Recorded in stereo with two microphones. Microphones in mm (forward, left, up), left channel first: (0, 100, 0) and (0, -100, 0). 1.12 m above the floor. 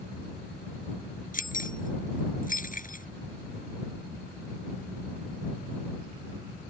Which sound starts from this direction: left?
Keys jangling, at 1.3 s.